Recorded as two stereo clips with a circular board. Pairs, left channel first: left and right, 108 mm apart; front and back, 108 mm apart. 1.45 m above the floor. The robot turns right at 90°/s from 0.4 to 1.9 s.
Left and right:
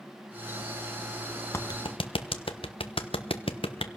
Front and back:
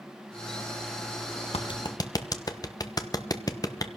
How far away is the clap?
About 1.2 m.